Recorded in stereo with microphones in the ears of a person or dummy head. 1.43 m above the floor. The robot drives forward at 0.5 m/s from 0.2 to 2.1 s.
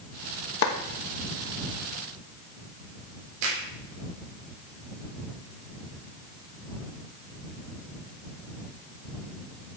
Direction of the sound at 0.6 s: 70° left (ahead or behind).